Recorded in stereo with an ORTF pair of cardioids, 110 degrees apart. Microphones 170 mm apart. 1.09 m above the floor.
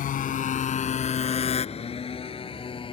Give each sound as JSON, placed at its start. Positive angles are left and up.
{"t": 0.0, "sound": "a motorcycle", "azimuth_deg": 55}